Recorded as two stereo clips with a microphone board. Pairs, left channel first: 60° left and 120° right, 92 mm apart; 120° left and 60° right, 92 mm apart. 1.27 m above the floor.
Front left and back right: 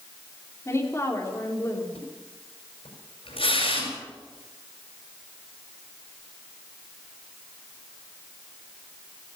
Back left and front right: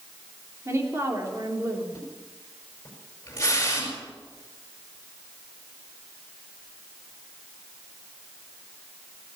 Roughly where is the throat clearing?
No throat clearing in this recording.